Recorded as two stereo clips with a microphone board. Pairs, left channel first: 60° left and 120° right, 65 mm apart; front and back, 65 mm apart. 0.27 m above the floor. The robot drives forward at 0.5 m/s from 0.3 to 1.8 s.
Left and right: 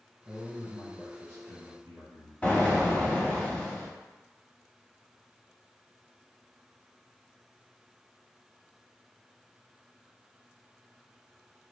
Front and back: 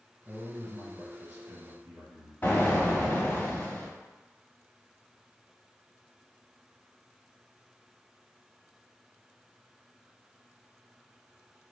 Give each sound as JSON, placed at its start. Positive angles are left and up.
{"t": 0.2, "sound": "a man speaking", "azimuth_deg": -120, "distance_m": 1.8}
{"t": 2.4, "sound": "an explosion", "azimuth_deg": 10, "distance_m": 0.7}